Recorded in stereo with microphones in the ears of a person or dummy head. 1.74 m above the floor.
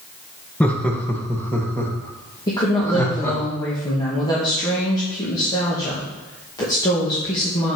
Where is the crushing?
No crushing in this recording.